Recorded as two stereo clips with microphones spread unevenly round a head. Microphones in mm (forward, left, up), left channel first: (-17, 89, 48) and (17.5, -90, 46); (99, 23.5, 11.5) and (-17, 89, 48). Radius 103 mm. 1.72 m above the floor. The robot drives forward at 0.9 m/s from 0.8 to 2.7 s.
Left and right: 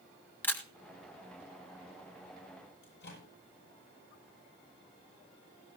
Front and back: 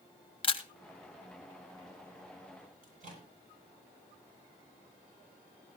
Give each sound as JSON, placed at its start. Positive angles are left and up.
{"t": 0.4, "sound": "a camera shutter", "azimuth_deg": 20, "distance_m": 2.0}
{"t": 2.8, "sound": "a microwave", "azimuth_deg": 130, "distance_m": 9.5}